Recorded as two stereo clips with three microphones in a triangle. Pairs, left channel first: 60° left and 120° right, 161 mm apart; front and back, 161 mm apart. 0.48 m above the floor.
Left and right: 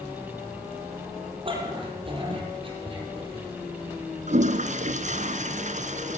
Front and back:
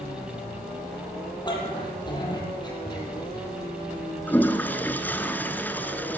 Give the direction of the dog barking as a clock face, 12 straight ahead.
2 o'clock.